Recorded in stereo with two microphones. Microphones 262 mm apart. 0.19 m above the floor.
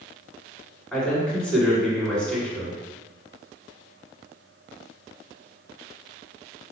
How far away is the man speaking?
About 1.9 m.